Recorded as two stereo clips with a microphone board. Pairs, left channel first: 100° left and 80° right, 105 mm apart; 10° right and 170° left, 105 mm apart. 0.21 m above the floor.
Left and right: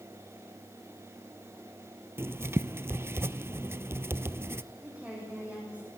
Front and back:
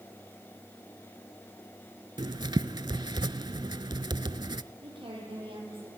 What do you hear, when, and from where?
2.2 s writing: 140° right, 0.5 m
4.8 s a woman speaking: 155° right, 8 m